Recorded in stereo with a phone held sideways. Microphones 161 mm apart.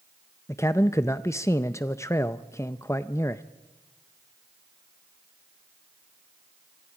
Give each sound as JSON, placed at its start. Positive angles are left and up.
{"t": 0.5, "sound": "a man speaking", "side_deg": 15, "distance_m": 0.5}